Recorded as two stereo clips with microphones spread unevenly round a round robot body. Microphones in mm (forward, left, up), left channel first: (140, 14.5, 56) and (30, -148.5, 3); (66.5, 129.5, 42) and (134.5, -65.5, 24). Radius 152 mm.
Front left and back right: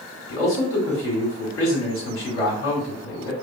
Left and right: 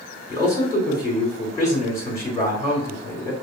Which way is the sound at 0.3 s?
35° left.